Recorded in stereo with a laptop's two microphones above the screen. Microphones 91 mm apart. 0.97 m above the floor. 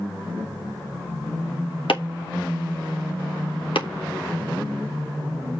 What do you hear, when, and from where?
1.9 s chopping: 75° left (ahead or behind), 2 m